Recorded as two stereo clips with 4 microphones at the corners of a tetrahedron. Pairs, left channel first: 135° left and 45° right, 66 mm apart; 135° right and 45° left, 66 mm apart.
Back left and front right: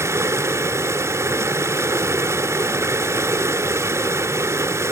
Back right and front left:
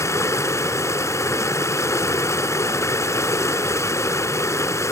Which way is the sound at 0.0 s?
90° right.